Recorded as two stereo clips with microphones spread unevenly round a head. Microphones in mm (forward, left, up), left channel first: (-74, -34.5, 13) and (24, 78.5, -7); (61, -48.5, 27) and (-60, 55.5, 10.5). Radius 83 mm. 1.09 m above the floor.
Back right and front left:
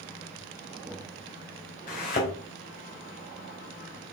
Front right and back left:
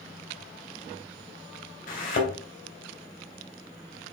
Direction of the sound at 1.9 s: 85° right.